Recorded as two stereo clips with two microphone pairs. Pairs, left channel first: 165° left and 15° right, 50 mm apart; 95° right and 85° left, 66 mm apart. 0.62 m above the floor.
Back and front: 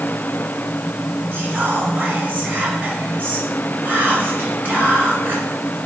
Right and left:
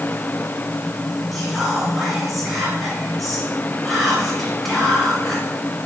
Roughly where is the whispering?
Ahead.